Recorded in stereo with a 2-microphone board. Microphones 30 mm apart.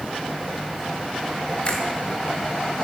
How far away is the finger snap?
About 4.5 m.